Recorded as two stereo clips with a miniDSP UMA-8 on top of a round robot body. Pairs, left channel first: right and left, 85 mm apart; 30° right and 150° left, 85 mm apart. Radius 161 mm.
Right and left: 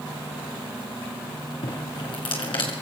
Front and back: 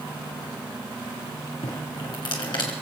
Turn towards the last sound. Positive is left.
turn(degrees=-65)